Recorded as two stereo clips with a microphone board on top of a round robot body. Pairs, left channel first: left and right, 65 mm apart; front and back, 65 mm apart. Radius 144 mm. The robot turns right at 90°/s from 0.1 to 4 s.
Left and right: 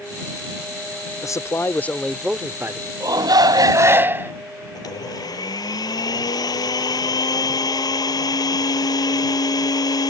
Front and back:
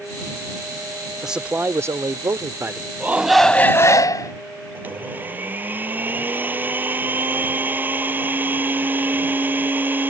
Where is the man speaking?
95° left; by 2.9 s 115° right.